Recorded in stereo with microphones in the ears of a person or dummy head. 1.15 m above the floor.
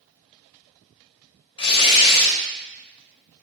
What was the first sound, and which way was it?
Tearing paper, 30° left (ahead or behind).